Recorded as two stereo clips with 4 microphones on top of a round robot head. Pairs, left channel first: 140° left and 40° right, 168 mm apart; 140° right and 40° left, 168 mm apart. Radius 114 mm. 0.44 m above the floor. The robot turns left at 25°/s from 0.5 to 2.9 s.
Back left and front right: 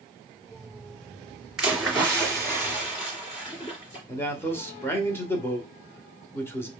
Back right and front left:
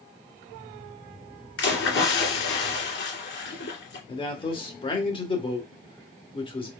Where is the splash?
125° right, 2 m; by 4.0 s 160° right, 2 m.